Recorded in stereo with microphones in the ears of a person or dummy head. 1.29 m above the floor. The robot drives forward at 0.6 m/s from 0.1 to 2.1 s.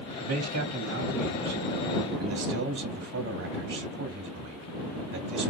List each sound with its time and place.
0.2 s a man speaking: 70° right (ahead or behind), 1.2 m; by 5.5 s 55° right (ahead or behind), 1.4 m